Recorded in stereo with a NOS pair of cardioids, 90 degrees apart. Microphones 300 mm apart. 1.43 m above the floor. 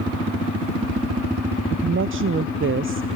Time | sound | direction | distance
1.7 | a woman speaking | 45° right | 0.7 m